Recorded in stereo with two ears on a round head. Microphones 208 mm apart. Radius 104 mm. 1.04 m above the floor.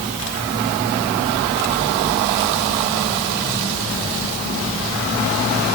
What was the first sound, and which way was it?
Only background noise.